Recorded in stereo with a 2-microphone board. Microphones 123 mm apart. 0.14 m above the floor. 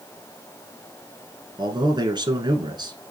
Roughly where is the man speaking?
Right.